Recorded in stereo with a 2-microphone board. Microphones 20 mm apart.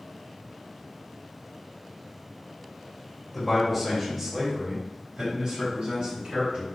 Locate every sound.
3.3 s a man speaking: 10° left (ahead or behind), 1.4 m; by 6.7 s 65° right (ahead or behind), 3 m